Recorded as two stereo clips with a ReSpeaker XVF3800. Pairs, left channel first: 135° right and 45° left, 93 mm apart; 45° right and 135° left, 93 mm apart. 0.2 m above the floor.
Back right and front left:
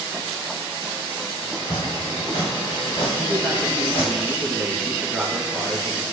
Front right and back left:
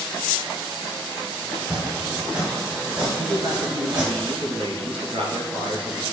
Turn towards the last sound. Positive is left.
turn(degrees=135)